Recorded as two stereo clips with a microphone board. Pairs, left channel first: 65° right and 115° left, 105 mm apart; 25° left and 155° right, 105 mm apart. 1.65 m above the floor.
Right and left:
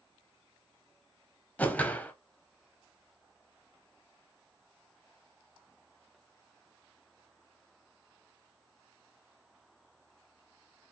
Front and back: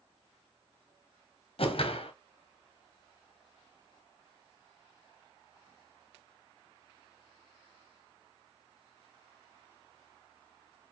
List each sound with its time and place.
1.6 s a whoosh: 10° left, 0.8 m